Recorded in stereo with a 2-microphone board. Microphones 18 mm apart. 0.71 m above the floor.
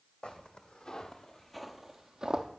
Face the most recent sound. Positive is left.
turn(degrees=-50)  # may be behind; listen again after turning